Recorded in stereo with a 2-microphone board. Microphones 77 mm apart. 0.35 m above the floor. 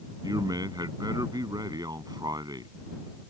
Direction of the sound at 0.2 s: 60° right (ahead or behind).